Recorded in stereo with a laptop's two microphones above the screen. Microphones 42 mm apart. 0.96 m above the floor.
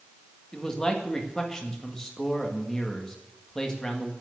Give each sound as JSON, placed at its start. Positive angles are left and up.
{"t": 0.5, "sound": "a man speaking", "side_deg": 10, "distance_m": 1.7}